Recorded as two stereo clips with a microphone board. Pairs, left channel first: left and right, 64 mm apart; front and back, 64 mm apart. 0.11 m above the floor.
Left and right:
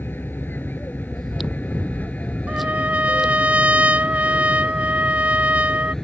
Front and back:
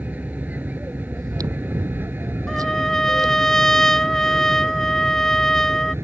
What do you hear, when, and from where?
0.0 s an aircraft: 130° left; by 6.0 s 165° left
1.1 s chewing: straight behind
2.5 s a trumpet: 70° right